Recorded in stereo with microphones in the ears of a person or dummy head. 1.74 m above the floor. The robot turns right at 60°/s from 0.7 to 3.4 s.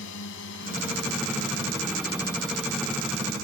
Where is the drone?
70° left (ahead or behind); by 3.4 s 45° right (ahead or behind).